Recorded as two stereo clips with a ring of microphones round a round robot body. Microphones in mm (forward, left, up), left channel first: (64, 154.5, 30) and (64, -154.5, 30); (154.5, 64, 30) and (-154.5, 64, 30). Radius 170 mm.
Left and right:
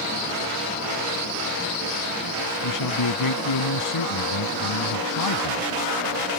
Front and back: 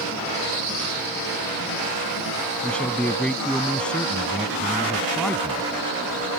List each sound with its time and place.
2.6 s a man speaking: 85° left